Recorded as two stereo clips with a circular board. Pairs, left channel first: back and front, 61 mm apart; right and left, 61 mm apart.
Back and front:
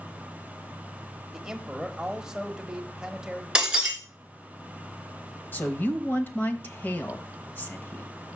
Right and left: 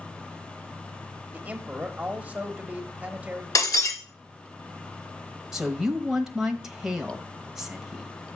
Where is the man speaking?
65° left, 0.9 m.